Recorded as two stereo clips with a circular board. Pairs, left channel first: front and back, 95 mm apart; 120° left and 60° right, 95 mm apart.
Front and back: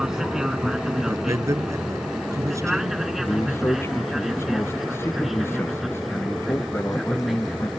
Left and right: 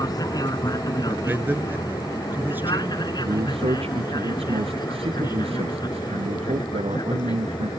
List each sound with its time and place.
0.0 s an aircraft: 100° left; by 7.8 s 90° left
1.1 s a man speaking: 130° right
3.2 s a man speaking: 65° right